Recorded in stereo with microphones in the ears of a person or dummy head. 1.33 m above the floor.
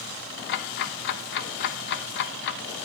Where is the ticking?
55° left (ahead or behind), 0.6 m.